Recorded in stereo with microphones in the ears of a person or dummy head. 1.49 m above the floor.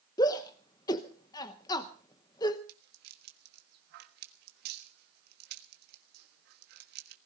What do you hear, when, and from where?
0.2 s a shout: 20° left (ahead or behind), 1.0 m
2.7 s a rattle: 55° right (ahead or behind), 1.4 m